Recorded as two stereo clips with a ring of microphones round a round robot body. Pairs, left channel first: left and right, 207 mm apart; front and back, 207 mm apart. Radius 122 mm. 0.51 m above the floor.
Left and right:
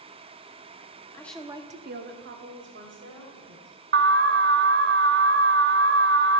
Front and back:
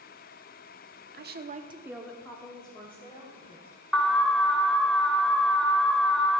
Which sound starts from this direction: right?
An alarm, at 3.9 s.